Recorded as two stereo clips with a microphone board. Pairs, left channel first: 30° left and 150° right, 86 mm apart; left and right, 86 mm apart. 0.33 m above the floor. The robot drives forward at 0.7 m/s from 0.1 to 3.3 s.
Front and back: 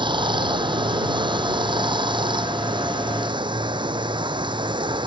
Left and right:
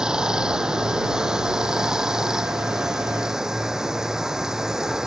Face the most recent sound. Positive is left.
turn(degrees=-175)